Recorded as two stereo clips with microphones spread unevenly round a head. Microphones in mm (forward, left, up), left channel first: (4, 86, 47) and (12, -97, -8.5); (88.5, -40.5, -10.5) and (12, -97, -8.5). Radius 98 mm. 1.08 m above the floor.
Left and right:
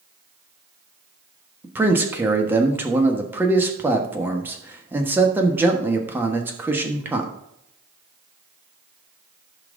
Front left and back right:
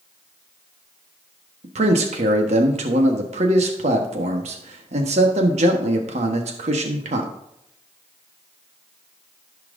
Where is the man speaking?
165° right, 1.3 m.